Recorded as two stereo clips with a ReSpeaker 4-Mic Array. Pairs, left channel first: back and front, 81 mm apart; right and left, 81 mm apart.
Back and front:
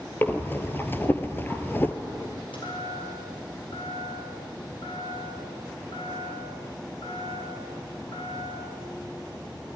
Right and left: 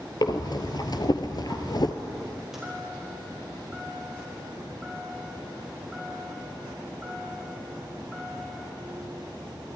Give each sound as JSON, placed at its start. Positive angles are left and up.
{"t": 0.2, "sound": "breathing", "azimuth_deg": -120, "distance_m": 1.7}
{"t": 2.5, "sound": "a chime", "azimuth_deg": 175, "distance_m": 8.5}